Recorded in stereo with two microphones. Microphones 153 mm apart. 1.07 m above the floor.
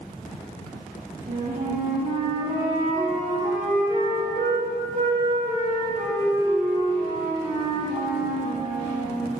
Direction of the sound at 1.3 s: 50° right (ahead or behind).